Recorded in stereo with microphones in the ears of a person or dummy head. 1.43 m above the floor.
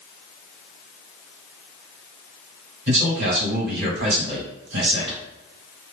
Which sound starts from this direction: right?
A man speaking, at 2.9 s.